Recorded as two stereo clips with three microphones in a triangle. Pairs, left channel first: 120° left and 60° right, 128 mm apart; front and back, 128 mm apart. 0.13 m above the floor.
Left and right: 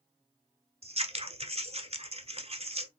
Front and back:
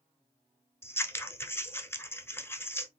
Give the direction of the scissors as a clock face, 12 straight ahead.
2 o'clock.